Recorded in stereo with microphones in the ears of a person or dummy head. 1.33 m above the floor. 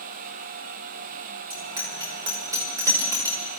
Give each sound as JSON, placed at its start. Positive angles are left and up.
{"t": 1.5, "sound": "a bicycle bell", "side_deg": -25, "distance_m": 3.0}